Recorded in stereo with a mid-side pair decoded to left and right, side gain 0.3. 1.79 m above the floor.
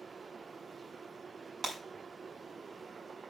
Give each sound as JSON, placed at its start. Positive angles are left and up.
{"t": 1.6, "sound": "breaking glass", "azimuth_deg": -65, "distance_m": 5.0}